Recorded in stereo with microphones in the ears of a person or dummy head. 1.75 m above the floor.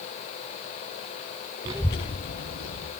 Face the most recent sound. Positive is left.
turn(degrees=70)  # may be behind; listen again after turning